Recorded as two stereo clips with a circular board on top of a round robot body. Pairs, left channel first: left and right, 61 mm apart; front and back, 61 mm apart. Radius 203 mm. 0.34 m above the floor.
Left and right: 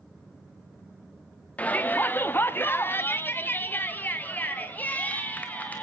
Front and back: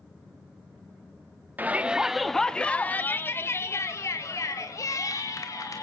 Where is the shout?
140° left, 1.0 m; by 5.8 s 25° left, 2.5 m.